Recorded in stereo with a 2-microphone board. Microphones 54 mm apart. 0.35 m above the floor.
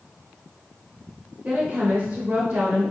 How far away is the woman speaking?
About 1.0 m.